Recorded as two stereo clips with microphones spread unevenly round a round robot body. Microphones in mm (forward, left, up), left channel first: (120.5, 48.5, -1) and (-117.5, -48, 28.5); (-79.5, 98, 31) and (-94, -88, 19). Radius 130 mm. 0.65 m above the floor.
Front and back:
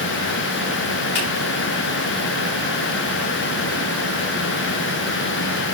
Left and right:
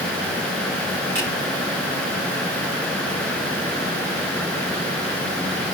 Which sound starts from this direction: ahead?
A finger snap, at 1.1 s.